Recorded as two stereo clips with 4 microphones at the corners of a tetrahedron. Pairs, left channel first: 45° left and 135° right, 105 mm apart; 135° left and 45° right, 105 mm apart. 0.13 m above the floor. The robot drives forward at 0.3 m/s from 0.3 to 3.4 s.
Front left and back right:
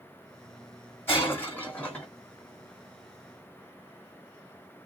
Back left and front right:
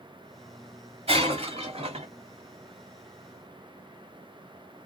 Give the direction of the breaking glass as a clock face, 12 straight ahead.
1 o'clock.